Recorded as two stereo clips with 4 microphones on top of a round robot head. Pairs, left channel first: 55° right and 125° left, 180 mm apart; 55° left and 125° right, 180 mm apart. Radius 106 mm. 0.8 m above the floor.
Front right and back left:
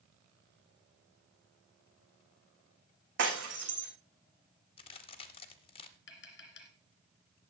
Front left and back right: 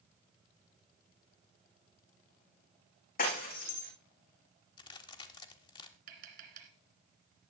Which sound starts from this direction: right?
Tapping, at 6.1 s.